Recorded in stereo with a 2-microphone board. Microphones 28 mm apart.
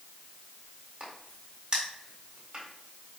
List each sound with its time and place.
1.0 s a crack: 25° right (ahead or behind), 1.6 m